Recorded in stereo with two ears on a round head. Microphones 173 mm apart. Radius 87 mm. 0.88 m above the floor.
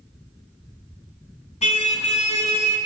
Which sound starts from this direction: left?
A car horn, at 1.6 s.